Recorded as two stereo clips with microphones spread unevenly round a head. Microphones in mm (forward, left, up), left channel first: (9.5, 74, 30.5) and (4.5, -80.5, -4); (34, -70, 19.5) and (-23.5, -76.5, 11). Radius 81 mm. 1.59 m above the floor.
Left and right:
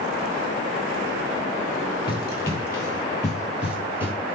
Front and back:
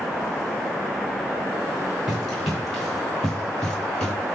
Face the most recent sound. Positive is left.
turn(degrees=-5)